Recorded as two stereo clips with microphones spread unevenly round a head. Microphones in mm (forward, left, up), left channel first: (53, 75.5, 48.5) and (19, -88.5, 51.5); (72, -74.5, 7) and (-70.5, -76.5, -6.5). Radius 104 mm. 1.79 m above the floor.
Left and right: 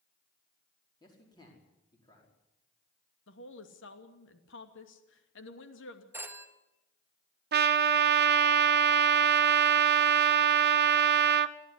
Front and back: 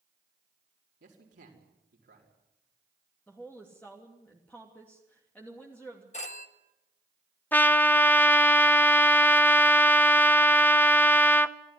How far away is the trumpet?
About 0.9 m.